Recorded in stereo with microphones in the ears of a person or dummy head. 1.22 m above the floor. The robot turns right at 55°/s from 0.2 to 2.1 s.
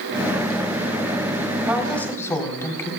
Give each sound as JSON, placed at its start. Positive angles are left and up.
{"t": 1.7, "sound": "a woman speaking", "side_deg": -5, "distance_m": 4.0}